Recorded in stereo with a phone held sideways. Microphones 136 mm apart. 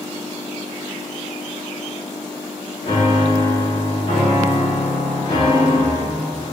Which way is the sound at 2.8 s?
60° left (ahead or behind).